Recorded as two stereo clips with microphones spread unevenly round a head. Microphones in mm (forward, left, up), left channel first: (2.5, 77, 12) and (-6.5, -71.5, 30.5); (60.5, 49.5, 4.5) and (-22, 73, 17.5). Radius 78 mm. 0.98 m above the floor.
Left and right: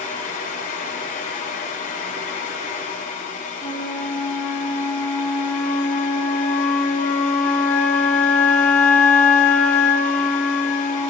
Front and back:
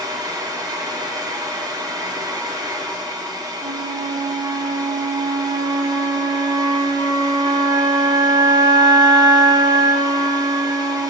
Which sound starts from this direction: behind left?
A fan, at 0.0 s.